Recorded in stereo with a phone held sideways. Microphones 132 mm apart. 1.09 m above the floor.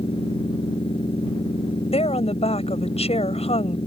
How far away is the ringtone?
No ringtone in this recording.